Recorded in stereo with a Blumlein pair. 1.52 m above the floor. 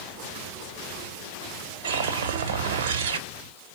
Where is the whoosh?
60° right, 1.2 m.